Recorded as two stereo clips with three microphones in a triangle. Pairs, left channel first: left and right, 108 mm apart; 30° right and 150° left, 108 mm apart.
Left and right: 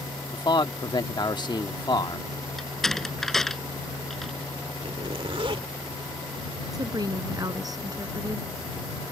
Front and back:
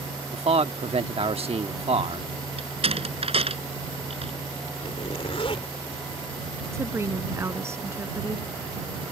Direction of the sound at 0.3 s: 135° left.